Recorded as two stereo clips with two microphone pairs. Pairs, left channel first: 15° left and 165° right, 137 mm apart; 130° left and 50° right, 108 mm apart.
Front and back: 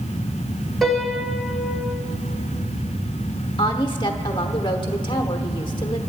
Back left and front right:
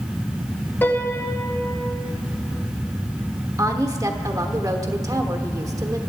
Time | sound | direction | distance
0.8 | a piano | 105° left | 0.9 m
3.6 | a woman speaking | 15° right | 1.1 m